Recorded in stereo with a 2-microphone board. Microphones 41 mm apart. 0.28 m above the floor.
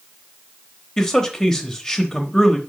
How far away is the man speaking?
About 0.9 m.